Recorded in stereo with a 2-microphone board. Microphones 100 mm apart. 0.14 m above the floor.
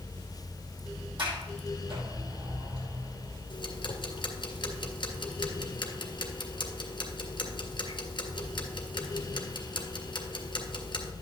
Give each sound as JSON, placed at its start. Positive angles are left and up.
{"t": 1.2, "sound": "a sliding door", "side_deg": -55, "distance_m": 5.0}
{"t": 3.5, "sound": "ticking", "side_deg": 55, "distance_m": 1.9}